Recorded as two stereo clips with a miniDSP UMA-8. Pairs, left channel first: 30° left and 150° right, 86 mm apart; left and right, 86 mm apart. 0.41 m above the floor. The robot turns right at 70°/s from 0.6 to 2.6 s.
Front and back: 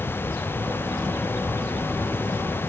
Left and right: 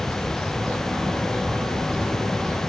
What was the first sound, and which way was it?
Only background noise.